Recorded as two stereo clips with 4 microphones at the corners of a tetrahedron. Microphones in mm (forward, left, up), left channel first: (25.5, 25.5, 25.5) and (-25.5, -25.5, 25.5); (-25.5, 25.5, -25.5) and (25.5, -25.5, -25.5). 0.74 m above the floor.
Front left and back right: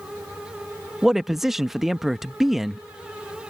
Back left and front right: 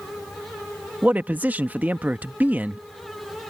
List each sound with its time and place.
1.0 s a man speaking: 60° right